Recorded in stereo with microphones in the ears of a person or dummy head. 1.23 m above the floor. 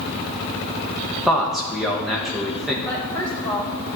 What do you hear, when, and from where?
1.3 s a man speaking: 5° right (ahead or behind), 1.3 m
2.9 s a woman speaking: 5° left (ahead or behind), 1.6 m